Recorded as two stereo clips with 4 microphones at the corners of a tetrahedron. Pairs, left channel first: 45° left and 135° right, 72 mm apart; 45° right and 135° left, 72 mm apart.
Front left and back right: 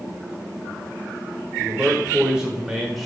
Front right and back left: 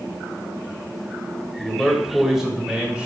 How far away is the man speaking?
About 1.5 m.